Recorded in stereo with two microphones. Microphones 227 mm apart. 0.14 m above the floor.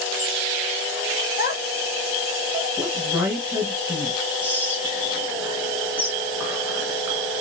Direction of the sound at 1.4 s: 45° left (ahead or behind).